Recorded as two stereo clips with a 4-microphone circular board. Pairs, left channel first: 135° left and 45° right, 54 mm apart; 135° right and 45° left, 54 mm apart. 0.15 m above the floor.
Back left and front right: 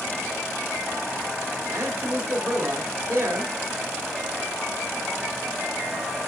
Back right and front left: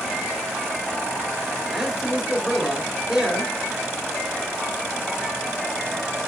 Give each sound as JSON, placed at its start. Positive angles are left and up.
{"t": 1.7, "sound": "a man speaking", "azimuth_deg": -30, "distance_m": 2.5}